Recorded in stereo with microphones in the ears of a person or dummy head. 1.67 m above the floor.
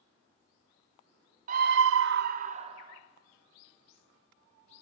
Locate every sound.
1.5 s a scream: 45° right (ahead or behind), 0.7 m; by 3.0 s 30° right (ahead or behind), 1.5 m